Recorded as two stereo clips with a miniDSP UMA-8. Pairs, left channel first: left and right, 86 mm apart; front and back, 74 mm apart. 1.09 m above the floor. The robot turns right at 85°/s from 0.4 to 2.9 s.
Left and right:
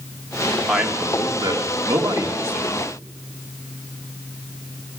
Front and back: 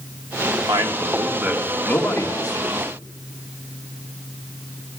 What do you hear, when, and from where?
0.7 s a man speaking: straight behind, 1.4 m; by 2.8 s straight ahead, 1.4 m